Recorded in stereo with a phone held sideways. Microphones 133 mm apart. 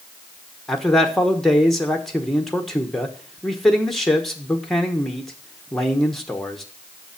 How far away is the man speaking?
About 1.1 m.